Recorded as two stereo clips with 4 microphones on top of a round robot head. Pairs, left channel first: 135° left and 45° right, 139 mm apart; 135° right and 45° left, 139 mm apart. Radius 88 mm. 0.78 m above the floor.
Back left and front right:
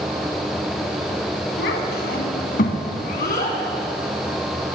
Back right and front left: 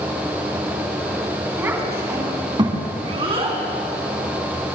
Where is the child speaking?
120° left, 3.5 m; by 3.6 s 95° left, 4 m.